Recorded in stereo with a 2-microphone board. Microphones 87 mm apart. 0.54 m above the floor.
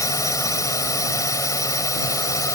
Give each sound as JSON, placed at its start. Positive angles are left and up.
{"t": 0.0, "sound": "a drone", "side_deg": 40}